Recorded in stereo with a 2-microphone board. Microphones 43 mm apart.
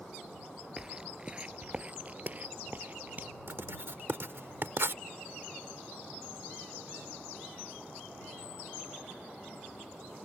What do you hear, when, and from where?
0.8 s footsteps: 20° right (ahead or behind); by 3.3 s 45° right (ahead or behind)
3.5 s writing: 65° right (ahead or behind)